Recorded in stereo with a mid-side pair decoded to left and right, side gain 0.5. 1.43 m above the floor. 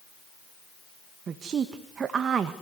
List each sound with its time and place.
1.3 s a woman speaking: 45° right, 1.9 m